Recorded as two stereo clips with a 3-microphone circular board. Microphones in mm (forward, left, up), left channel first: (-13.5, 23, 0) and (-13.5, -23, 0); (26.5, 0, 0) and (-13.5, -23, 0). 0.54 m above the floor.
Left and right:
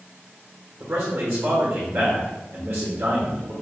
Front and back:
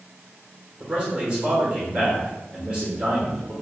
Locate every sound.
0.8 s a man speaking: 85° right, 1.7 m